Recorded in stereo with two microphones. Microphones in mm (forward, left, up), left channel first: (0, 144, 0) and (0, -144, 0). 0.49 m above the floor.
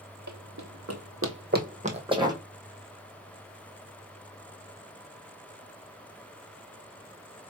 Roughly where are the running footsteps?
Right.